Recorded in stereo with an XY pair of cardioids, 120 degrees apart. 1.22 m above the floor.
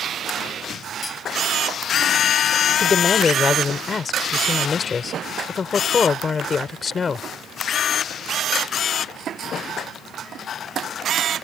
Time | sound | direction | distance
1.0 | cutlery clinking | 25° left | ?
2.8 | a woman speaking | 35° left | ?